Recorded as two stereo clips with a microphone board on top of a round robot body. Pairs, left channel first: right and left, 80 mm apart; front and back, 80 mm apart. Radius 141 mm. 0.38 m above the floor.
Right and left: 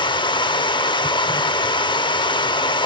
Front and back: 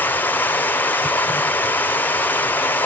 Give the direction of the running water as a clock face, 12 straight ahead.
2 o'clock.